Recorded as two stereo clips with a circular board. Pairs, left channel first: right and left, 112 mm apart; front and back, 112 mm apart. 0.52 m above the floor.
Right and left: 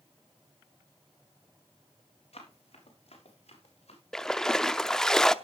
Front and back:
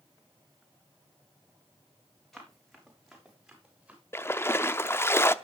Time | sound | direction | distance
2.3 | running footsteps | 90° right | 6 m
4.1 | a splash | 15° right | 0.6 m